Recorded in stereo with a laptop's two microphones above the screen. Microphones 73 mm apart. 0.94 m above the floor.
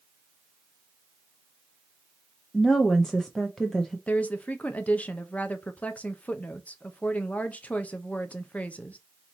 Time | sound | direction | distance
2.5 | a woman speaking | 5° left (ahead or behind) | 0.5 m
4.1 | a woman speaking | 20° left (ahead or behind) | 0.7 m